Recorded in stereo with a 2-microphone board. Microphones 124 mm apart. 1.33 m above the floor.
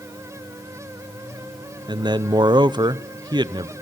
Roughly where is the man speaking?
Right.